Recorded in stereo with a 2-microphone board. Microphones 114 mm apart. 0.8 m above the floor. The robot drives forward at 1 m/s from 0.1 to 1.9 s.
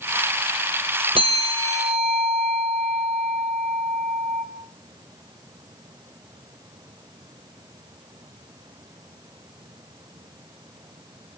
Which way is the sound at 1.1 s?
50° right (ahead or behind).